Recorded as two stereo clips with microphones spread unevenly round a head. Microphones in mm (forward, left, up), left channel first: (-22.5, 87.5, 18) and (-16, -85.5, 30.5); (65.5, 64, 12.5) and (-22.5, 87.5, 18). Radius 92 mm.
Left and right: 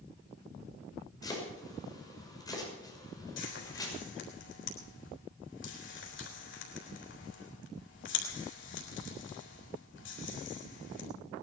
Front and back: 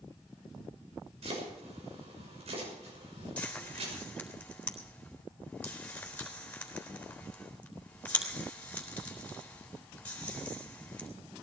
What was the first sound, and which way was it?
Chopping, 165° left.